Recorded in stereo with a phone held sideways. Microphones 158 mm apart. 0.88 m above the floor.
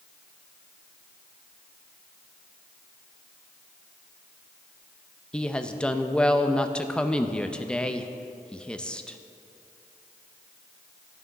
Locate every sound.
5.3 s a woman speaking: 5° left (ahead or behind), 0.6 m